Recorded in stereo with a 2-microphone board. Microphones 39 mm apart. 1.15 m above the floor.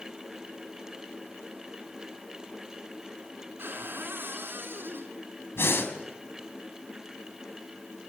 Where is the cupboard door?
70° right (ahead or behind), 5.5 m.